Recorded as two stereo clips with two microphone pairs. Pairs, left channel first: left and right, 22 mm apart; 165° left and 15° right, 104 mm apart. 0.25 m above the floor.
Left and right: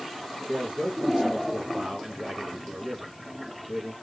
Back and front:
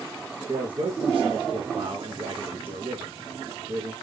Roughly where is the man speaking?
Ahead right.